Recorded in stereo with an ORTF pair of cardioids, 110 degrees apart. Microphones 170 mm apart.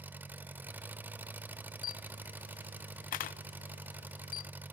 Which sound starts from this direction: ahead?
An engine running, at 0.0 s.